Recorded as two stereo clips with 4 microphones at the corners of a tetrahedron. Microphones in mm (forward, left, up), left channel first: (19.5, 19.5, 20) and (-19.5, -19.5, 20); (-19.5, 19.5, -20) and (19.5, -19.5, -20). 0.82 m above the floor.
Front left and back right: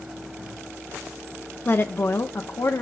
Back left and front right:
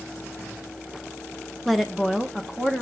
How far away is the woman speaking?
About 0.8 m.